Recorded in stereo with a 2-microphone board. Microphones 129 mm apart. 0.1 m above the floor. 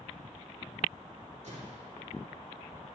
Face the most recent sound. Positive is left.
turn(degrees=-60)  # may be behind; listen again after turning